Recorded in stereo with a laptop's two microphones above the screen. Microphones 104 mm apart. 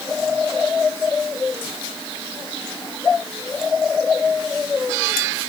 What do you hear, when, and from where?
Only background noise.